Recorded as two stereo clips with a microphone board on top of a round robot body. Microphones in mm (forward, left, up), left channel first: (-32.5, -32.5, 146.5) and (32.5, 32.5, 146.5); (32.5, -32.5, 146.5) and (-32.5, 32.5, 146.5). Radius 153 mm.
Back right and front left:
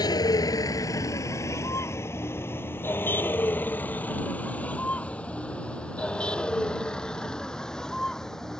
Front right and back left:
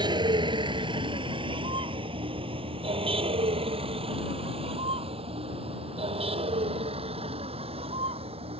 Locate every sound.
0.0 s a vehicle: 175° left; by 8.6 s 140° left